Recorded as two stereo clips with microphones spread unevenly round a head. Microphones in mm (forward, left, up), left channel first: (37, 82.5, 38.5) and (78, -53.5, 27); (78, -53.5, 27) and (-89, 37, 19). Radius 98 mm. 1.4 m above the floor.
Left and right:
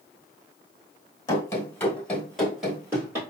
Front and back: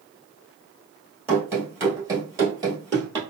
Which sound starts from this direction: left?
Running footsteps, at 1.3 s.